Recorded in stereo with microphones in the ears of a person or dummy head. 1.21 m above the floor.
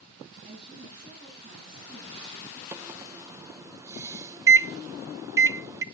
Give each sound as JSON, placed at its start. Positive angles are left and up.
{"t": 0.4, "sound": "a woman speaking", "side_deg": -40, "distance_m": 8.5}
{"t": 2.7, "sound": "a microwave", "side_deg": -20, "distance_m": 0.7}